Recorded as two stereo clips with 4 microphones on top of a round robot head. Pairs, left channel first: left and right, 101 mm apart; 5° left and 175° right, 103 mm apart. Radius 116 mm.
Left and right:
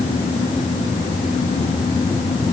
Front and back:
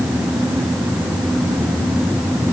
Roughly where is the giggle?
No giggle in this recording.